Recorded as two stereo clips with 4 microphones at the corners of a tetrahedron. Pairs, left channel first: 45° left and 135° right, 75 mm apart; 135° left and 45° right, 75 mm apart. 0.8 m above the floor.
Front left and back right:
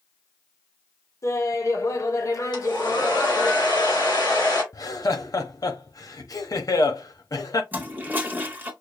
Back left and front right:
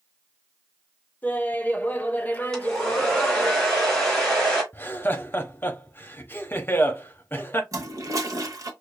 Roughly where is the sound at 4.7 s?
Left.